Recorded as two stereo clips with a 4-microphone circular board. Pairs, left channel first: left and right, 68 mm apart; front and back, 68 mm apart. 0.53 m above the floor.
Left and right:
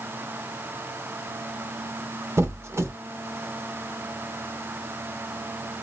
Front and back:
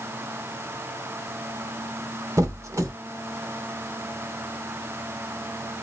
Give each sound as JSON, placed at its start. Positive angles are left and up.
{"t": 2.4, "sound": "a squeak", "azimuth_deg": -140, "distance_m": 0.6}